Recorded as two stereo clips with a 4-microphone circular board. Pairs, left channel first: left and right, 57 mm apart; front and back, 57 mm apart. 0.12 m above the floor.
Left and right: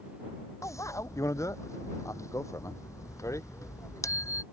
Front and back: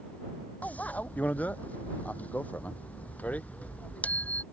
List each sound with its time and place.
0.6 s a bicycle bell: 65° left